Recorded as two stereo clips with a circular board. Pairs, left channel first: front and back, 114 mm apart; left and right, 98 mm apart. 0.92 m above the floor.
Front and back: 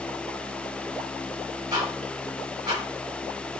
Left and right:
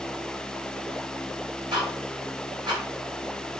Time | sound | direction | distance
1.7 | ticking | 125° right | 5.5 m